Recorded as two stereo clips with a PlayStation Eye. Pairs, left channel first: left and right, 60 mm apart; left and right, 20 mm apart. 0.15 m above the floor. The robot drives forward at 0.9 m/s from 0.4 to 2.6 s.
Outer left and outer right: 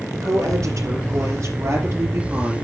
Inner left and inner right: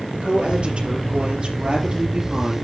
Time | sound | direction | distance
0.1 | a woman speaking | 65° right (ahead or behind) | 3.5 m